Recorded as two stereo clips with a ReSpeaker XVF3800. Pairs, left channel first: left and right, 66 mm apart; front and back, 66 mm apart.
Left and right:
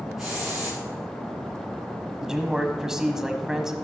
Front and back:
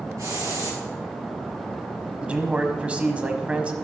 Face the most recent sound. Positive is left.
turn(degrees=-155)